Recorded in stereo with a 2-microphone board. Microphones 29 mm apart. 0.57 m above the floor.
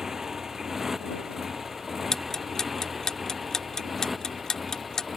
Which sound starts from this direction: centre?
A motorcycle, at 0.0 s.